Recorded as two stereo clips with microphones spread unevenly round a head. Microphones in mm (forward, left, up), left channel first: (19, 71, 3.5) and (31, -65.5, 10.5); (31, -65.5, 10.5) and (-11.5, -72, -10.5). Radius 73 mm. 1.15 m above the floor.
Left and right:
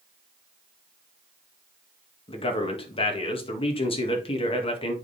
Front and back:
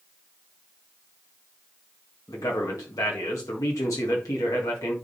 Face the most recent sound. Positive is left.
turn(degrees=45)